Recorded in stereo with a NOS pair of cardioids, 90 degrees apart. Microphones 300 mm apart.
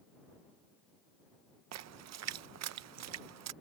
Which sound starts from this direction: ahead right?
A splash, at 1.7 s.